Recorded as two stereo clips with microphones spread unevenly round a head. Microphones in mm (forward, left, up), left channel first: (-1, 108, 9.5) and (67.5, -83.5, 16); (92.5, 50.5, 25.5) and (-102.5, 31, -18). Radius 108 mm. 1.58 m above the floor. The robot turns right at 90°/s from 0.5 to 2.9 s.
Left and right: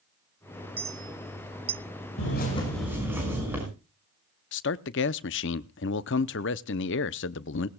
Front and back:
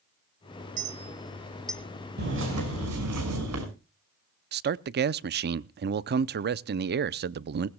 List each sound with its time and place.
0.8 s a clink: 140° right, 0.5 m; by 1.8 s 45° right, 0.5 m
2.2 s a bird: 145° left, 6 m; by 3.6 s 150° right, 6 m
4.5 s a man speaking: 145° left, 0.6 m